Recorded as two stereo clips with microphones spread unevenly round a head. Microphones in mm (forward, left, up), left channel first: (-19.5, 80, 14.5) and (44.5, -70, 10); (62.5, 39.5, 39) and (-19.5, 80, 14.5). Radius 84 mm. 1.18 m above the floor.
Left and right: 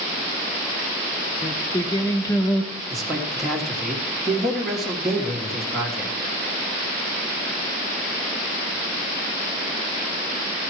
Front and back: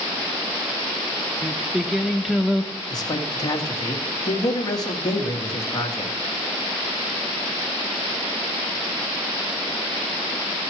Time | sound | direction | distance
1.4 | singing | 55° left | 0.9 m
2.9 | a man speaking | 20° left | 1.9 m